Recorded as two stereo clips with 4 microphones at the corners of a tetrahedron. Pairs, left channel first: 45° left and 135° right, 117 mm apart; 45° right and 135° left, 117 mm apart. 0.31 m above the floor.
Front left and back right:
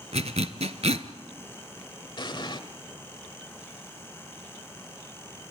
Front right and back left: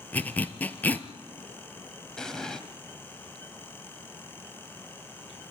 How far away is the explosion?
About 1.4 m.